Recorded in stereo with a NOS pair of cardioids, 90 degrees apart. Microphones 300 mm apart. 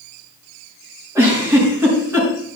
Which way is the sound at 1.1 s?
10° right.